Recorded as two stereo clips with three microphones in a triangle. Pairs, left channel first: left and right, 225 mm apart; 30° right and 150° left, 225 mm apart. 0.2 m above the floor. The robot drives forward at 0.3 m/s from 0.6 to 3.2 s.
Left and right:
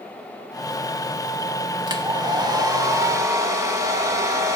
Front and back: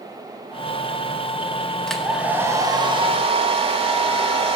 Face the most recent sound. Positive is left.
turn(degrees=-155)